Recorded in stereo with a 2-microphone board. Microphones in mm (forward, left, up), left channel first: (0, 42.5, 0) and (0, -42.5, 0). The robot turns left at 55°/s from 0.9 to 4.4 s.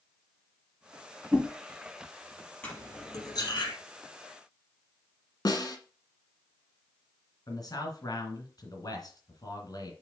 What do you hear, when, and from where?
1.3 s a whoosh: 10° right (ahead or behind), 1.6 m
2.6 s cutlery clinking: 20° left (ahead or behind), 3.5 m; by 3.7 s 75° left (ahead or behind), 3.5 m
5.5 s a snare drum: 50° left (ahead or behind), 1.4 m
7.5 s a man speaking: 50° left (ahead or behind), 2.5 m